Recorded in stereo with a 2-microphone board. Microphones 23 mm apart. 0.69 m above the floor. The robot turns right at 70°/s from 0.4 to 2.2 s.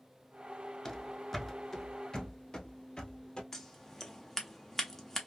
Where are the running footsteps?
20° left (ahead or behind), 0.6 m; by 3.4 s 35° left (ahead or behind), 1.4 m.